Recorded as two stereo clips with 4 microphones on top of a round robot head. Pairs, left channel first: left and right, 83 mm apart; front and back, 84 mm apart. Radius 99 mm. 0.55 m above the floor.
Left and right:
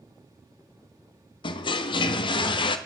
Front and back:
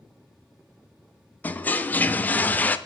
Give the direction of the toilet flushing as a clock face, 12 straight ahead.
10 o'clock.